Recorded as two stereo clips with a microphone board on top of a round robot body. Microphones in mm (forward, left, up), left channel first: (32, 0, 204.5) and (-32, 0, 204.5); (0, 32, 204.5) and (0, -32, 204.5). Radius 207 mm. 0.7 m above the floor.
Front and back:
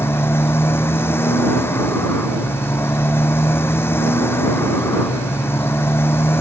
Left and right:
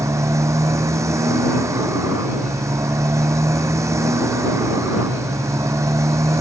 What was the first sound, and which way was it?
A motorcycle, 50° right.